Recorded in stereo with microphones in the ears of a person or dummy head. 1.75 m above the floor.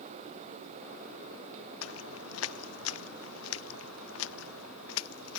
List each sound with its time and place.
1.8 s footsteps: 80° left